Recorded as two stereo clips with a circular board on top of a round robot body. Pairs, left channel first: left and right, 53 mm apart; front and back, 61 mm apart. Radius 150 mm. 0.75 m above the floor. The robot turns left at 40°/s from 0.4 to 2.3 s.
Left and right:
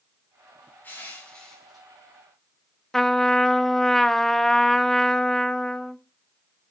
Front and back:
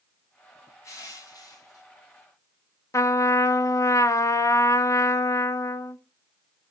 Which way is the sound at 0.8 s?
35° left.